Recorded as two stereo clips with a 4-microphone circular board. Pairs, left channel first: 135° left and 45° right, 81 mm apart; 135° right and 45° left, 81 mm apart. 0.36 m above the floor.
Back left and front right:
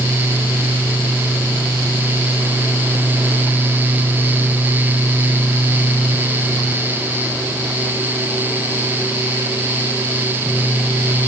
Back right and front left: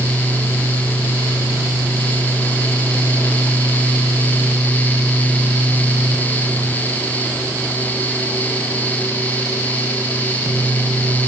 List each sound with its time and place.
Only background noise.